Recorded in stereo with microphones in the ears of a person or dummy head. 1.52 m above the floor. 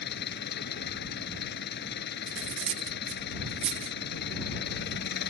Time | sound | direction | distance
0.0 | an engine running | 55° left (ahead or behind) | ?
2.3 | cutlery clinking | 40° right (ahead or behind) | ?